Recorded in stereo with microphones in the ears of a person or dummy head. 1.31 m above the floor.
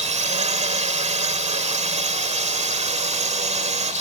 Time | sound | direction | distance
0.0 | a drone | 35° right (ahead or behind) | ?